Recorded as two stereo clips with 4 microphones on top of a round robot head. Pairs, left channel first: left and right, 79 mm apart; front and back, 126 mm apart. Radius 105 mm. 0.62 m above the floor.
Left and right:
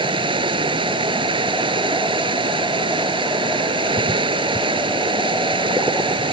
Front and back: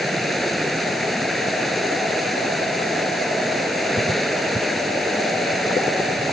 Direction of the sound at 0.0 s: 90° right.